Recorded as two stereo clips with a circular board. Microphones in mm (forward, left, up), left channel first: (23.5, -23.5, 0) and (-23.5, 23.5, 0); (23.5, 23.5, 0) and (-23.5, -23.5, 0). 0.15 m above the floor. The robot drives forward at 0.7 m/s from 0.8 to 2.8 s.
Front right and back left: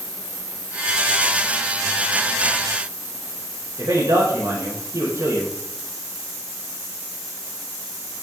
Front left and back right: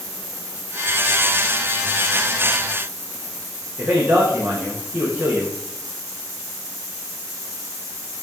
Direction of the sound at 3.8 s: 150° left.